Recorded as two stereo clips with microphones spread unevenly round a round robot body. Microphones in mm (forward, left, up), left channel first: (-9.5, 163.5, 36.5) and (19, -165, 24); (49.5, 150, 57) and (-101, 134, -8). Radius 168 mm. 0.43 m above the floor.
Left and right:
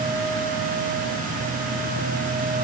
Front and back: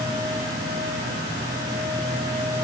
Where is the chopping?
No chopping in this recording.